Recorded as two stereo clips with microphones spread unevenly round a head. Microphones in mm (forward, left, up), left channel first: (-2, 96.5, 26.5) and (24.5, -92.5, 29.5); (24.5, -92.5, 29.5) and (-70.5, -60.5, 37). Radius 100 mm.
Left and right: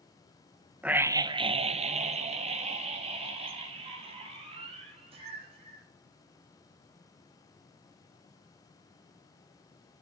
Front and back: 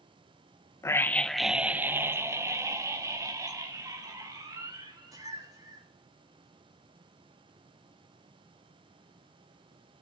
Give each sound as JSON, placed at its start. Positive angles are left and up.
{"t": 0.8, "sound": "a scream", "azimuth_deg": 0, "distance_m": 1.0}